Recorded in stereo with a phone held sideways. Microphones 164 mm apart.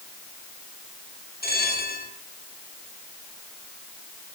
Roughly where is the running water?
I don't hear running water.